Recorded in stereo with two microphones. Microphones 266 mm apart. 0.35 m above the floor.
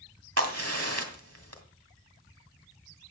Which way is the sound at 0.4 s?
60° right (ahead or behind).